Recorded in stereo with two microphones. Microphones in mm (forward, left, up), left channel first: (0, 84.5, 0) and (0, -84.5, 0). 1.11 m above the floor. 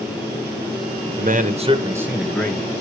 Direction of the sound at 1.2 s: 60° right (ahead or behind).